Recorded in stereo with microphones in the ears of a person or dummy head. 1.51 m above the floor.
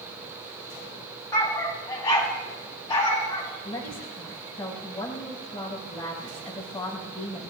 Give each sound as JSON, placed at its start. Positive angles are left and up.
{"t": 1.3, "sound": "a dog barking", "side_deg": 15, "distance_m": 4.0}
{"t": 3.6, "sound": "a woman speaking", "side_deg": 15, "distance_m": 7.0}